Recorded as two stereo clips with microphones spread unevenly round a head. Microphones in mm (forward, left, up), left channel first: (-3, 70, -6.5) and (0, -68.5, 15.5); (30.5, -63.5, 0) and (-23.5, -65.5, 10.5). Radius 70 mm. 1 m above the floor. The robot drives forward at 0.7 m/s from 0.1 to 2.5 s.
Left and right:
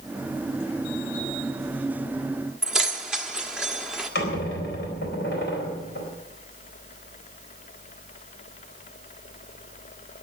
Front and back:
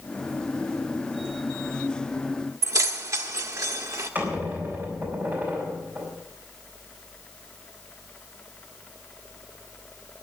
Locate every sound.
2.6 s keys jangling: 175° right, 1.1 m
4.2 s a squeak: 105° left, 4 m